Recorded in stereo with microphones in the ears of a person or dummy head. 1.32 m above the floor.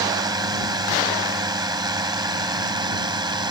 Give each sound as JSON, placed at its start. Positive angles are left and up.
{"t": 0.0, "sound": "a drone", "side_deg": -20}